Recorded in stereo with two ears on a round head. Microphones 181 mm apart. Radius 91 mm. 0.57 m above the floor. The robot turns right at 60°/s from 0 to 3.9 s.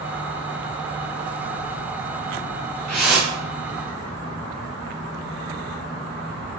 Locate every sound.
2.9 s a whoosh: 175° left, 2.5 m; by 3.4 s 150° right, 2.5 m